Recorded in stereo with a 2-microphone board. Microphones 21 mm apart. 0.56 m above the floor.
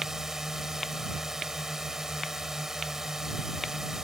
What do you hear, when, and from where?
0.0 s a drone: 25° right (ahead or behind)